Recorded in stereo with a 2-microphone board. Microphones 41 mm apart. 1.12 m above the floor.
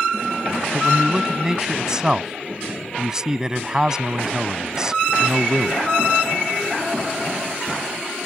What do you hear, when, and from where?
0.7 s a man speaking: 15° right (ahead or behind)